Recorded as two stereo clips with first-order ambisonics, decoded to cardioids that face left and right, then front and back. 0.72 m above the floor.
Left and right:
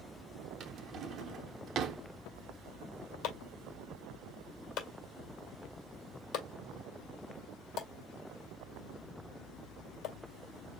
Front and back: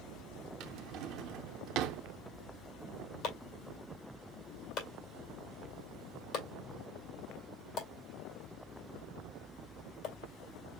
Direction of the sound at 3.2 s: 45° left.